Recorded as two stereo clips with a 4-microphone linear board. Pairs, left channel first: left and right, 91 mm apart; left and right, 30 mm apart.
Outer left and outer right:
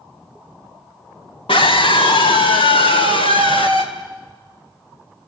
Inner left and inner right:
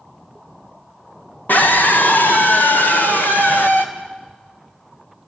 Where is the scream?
70° left (ahead or behind), 2 m; by 3.9 s 75° left (ahead or behind), 4 m.